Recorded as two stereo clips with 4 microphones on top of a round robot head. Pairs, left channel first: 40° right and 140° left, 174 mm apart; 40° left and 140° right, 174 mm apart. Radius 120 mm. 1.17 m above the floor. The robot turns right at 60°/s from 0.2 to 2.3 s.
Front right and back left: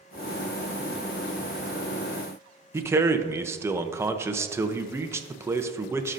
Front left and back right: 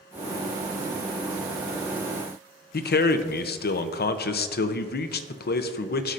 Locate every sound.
2.7 s a man speaking: 65° left, 0.6 m